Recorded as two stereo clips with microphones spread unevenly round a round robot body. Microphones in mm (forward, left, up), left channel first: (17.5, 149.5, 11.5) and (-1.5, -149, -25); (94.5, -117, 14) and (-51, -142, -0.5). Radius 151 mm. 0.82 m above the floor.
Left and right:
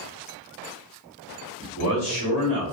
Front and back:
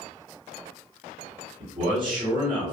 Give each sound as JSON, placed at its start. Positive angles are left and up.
{"t": 1.6, "sound": "a man speaking", "azimuth_deg": 155, "distance_m": 1.3}